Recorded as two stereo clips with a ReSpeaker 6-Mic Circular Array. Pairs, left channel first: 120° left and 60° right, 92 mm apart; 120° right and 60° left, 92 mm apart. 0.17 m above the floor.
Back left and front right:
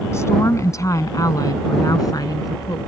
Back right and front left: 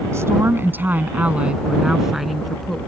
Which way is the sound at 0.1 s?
90° left.